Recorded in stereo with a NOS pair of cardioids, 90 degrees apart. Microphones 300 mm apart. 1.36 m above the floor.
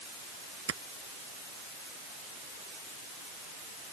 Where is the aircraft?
I don't hear an aircraft.